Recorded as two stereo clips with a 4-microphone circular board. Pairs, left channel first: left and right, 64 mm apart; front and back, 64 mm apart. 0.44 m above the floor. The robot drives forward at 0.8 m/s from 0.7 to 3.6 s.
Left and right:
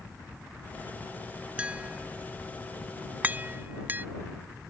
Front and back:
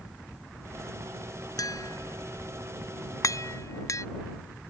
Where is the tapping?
20° right; by 4.0 s 30° right.